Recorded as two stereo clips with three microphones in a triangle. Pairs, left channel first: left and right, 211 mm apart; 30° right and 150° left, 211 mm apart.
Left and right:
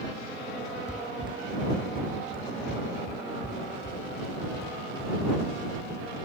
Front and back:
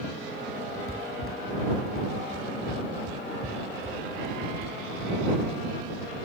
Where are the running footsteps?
145° left; by 6.2 s 130° left.